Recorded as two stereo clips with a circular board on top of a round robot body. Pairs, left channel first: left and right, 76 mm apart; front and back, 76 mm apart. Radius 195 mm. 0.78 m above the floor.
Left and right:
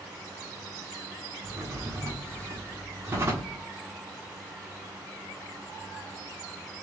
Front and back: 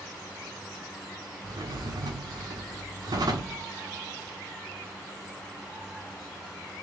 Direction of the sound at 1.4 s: 150° right.